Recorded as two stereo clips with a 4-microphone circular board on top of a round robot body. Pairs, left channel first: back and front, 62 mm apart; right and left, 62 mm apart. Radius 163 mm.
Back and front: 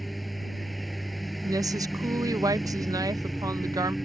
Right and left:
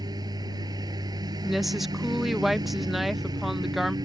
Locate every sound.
0.0 s a lawn mower: 90° left
1.4 s a woman speaking: 5° left